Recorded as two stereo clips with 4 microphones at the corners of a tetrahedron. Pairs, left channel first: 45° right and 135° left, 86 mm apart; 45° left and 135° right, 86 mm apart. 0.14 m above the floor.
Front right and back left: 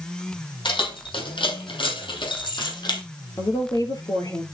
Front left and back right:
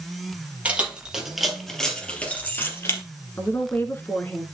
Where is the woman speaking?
15° right, 2.0 m.